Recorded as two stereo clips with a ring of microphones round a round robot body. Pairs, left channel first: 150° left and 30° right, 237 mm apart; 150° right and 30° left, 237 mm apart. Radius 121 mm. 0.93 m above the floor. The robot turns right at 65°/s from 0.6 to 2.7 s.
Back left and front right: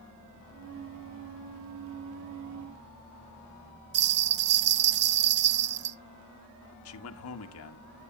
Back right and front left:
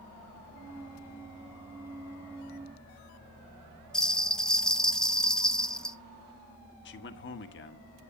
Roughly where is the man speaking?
Behind.